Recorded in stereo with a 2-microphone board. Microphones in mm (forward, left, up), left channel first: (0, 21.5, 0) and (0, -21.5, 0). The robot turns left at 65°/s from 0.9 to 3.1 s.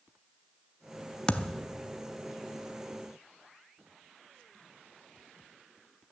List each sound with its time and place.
1.3 s a thud: 25° left (ahead or behind), 0.6 m; by 1.7 s 5° left (ahead or behind), 0.6 m